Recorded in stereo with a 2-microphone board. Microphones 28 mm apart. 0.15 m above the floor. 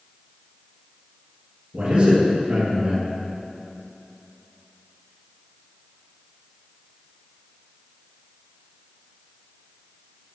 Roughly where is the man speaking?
Right.